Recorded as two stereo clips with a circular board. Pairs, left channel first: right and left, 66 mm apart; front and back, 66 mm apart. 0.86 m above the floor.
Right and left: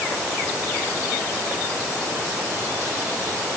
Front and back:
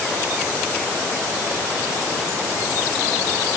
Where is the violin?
I don't hear a violin.